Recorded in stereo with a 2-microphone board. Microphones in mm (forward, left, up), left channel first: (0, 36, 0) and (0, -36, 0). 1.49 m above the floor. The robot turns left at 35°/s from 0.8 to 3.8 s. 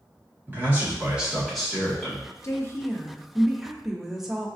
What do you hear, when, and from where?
0.5 s a man speaking: 155° right, 1.7 m; by 2.2 s 155° left, 1.7 m
2.4 s a woman speaking: 40° left, 0.6 m; by 4.5 s 5° right, 0.6 m